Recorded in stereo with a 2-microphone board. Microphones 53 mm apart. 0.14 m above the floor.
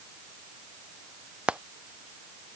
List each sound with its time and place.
1.5 s frying: 20° right (ahead or behind)